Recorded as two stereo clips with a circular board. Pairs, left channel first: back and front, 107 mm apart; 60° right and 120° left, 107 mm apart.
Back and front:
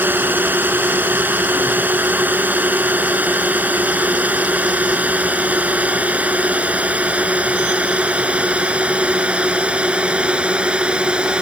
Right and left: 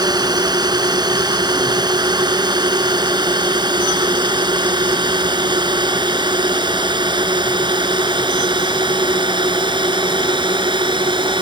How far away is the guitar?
I don't hear a guitar.